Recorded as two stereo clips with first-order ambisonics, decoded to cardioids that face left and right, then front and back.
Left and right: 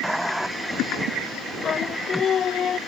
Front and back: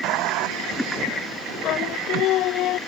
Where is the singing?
30° left.